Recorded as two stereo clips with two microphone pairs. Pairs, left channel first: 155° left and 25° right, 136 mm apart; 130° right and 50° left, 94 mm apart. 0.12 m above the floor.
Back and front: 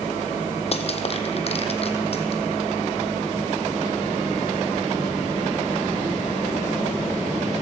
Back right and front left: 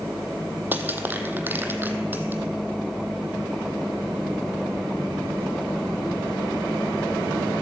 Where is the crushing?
120° left, 0.9 m.